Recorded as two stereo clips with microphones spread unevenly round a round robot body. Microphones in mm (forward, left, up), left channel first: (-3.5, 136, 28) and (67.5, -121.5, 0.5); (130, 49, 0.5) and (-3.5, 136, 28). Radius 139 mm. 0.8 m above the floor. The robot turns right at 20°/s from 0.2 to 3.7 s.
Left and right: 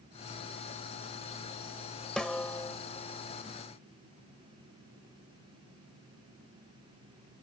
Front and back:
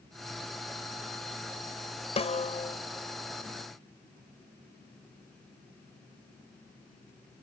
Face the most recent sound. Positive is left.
turn(degrees=50)